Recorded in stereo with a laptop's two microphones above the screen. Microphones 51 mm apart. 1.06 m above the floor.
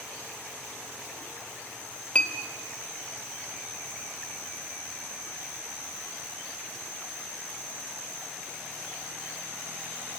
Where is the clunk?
I don't hear a clunk.